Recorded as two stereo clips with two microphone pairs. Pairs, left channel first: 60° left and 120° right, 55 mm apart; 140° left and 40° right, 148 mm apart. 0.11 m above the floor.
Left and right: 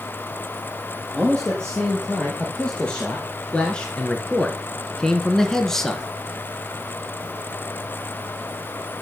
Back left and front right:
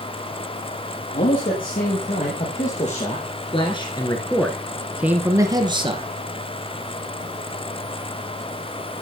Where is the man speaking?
135° left, 3.5 m; by 6.0 s 20° right, 2 m.